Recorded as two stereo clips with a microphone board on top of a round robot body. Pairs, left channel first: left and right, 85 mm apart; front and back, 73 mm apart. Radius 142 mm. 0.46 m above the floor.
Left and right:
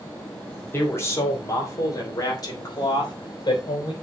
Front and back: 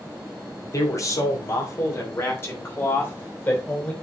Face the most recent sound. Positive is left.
turn(degrees=60)